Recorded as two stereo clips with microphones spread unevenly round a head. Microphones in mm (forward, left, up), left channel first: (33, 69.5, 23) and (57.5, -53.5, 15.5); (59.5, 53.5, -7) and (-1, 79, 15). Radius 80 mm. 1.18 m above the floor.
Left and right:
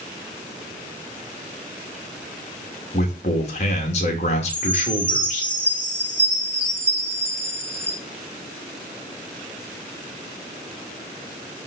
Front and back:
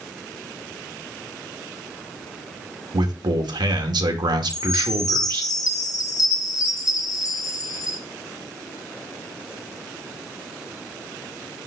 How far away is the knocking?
No knocking in this recording.